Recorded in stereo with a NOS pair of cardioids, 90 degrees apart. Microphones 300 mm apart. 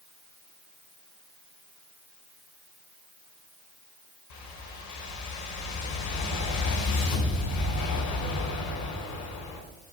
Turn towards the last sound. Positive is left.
turn(degrees=70)